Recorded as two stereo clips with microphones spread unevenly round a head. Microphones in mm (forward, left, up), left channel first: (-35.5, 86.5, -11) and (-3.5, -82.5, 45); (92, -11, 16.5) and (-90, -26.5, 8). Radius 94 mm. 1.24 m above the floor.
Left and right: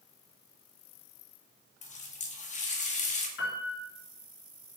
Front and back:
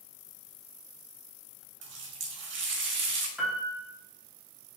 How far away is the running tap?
About 1.4 m.